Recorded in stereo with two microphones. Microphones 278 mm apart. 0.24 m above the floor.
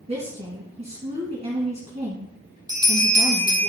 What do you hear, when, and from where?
0.1 s a woman speaking: 25° right (ahead or behind), 2 m
2.7 s a bell: 15° right (ahead or behind), 3.5 m